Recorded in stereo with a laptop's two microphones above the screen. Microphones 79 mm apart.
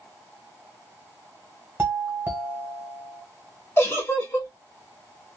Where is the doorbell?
25° right (ahead or behind), 1.5 m.